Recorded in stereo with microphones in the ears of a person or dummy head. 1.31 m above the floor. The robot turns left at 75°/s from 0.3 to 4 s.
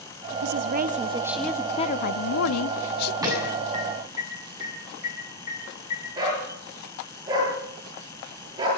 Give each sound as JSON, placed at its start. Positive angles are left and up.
{"t": 0.4, "sound": "a woman speaking", "azimuth_deg": -110, "distance_m": 0.7}
{"t": 3.2, "sound": "an alarm", "side_deg": -15, "distance_m": 8.0}
{"t": 6.2, "sound": "a dog barking", "side_deg": -20, "distance_m": 10.0}